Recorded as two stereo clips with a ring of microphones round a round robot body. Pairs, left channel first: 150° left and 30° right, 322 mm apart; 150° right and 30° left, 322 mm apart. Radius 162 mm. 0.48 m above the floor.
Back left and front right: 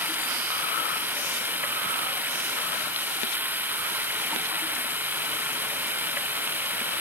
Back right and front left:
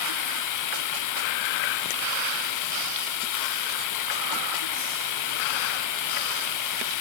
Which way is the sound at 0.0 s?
115° right.